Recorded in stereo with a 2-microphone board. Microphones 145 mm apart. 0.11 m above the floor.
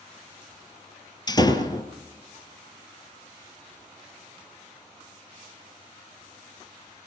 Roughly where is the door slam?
Left.